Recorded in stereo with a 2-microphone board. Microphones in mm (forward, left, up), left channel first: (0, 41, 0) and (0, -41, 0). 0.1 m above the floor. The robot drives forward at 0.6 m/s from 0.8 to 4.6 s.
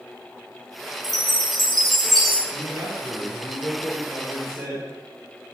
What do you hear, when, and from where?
1.0 s a chime: centre (ahead or behind), 1.7 m
2.5 s a man speaking: 45° right (ahead or behind), 3 m; by 5.5 s 35° right (ahead or behind), 3.5 m